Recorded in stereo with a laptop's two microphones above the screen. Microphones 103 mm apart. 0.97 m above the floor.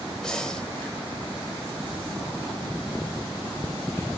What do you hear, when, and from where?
0.2 s breathing: 5° left (ahead or behind), 0.8 m